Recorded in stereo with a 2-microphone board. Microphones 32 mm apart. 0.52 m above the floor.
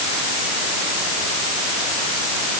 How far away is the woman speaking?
No woman speaking in this recording.